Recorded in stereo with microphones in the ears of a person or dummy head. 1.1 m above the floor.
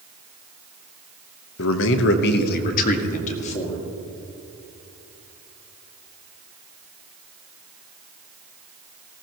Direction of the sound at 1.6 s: 70° left (ahead or behind).